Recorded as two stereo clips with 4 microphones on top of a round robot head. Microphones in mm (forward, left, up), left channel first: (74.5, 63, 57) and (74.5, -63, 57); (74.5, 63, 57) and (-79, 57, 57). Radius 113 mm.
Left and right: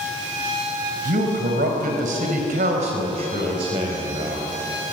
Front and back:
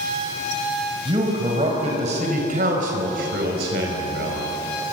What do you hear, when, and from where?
1.1 s a man speaking: 110° right, 4.5 m; by 4.5 s 155° right, 4.5 m